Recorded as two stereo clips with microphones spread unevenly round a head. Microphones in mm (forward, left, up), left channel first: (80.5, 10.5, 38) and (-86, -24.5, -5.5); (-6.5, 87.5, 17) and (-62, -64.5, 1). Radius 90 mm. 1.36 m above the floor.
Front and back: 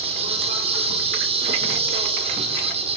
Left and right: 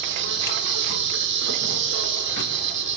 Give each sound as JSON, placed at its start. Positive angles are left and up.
{"t": 0.0, "sound": "an insect", "azimuth_deg": -110, "distance_m": 4.5}